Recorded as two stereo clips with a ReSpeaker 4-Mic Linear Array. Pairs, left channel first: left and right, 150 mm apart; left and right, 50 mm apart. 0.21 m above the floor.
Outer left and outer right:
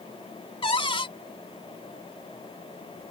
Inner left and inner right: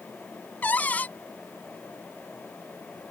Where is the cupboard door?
35° left (ahead or behind).